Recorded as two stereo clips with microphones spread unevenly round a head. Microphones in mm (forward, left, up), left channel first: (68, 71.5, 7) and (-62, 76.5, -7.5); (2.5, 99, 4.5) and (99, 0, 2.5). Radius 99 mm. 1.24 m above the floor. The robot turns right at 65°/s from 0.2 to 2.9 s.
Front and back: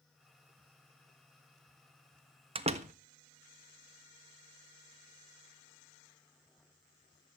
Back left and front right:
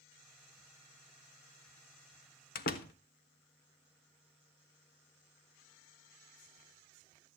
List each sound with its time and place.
2.5 s a door slam: 130° left, 1.4 m; by 2.9 s 155° left, 1.4 m